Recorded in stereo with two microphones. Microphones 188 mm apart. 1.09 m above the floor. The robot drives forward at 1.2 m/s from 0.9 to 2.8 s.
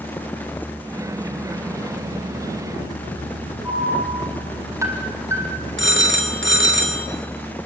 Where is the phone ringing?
80° right, 2 m.